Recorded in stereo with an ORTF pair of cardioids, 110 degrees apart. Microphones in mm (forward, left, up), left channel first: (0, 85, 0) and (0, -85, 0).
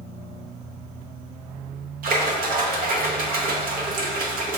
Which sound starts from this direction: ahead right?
A splash, at 2.0 s.